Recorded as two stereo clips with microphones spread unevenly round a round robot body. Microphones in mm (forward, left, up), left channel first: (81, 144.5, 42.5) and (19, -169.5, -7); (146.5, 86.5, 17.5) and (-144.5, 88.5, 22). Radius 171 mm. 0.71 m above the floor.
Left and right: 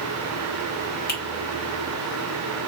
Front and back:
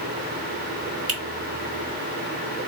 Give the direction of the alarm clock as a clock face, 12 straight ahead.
No alarm clock in this recording.